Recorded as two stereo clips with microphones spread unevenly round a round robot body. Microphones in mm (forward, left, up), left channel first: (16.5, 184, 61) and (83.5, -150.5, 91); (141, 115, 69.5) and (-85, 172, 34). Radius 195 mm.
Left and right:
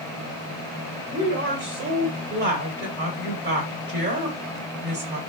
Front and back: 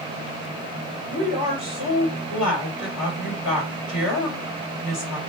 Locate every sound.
1.1 s a woman speaking: 15° right, 2.5 m